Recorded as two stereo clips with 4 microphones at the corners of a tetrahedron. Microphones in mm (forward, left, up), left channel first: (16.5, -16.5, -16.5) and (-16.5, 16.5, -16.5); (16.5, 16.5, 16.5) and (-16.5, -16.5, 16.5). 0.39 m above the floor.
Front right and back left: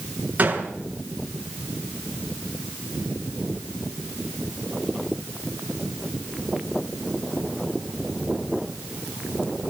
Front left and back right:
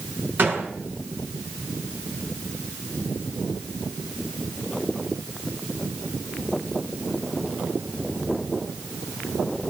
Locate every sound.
0.4 s a gunshot: 170° right, 6 m